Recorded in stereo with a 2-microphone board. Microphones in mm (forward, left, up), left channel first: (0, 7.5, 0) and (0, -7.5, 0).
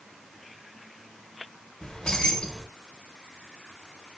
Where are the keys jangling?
75° left (ahead or behind), 0.7 m.